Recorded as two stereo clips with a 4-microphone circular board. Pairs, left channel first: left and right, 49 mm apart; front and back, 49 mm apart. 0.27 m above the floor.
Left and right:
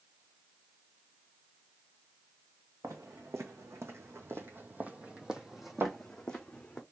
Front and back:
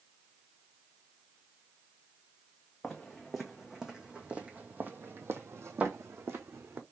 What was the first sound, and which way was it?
Footsteps, 90° right.